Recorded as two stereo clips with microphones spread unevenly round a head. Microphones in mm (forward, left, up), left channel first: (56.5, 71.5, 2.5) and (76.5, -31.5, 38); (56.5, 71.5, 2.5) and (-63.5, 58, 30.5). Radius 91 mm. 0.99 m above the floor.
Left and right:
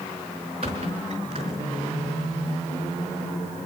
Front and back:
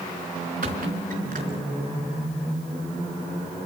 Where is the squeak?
130° right, 3.5 m.